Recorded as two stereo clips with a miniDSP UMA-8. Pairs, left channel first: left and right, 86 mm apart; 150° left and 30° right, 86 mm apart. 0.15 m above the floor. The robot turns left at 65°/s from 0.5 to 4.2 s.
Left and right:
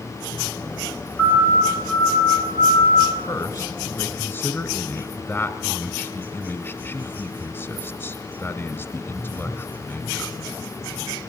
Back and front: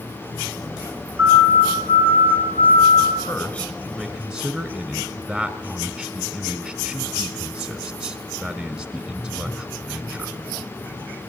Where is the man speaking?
110° left, 1.3 m; by 10.4 s 50° left, 1.3 m.